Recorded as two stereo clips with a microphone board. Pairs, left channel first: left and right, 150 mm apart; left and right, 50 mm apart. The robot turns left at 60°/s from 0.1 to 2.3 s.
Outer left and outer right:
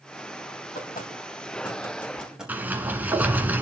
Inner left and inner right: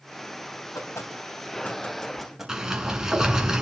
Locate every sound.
0.8 s knocking: 80° left, 3.5 m; by 3.5 s 5° right (ahead or behind), 3.5 m
2.5 s a sliding door: 10° right (ahead or behind), 1.6 m